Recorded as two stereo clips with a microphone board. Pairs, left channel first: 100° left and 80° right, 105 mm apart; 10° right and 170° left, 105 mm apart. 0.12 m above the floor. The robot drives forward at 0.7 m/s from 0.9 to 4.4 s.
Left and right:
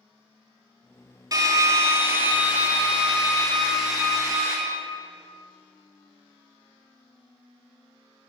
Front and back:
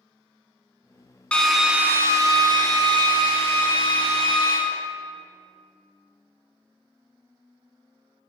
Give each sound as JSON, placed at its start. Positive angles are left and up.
{"t": 1.3, "sound": "a drill", "azimuth_deg": -85, "distance_m": 0.8}